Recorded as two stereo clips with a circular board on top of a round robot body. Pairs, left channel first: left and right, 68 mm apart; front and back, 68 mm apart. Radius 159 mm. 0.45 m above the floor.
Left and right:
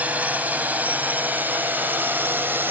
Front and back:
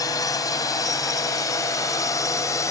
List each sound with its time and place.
0.0 s a drone: 25° right; by 2.7 s 35° right